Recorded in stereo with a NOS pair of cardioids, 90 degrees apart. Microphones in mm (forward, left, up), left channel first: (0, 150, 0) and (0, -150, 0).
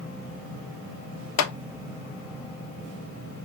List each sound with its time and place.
1.4 s a clap: 65° left, 0.8 m